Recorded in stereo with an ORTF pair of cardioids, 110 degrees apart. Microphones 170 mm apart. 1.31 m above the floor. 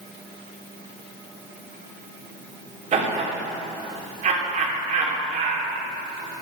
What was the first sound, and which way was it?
Laughter, 45° right.